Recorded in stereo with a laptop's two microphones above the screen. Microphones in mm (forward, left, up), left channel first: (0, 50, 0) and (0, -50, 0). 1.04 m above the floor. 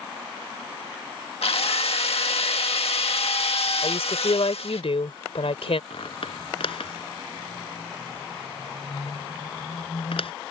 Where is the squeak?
70° left (ahead or behind).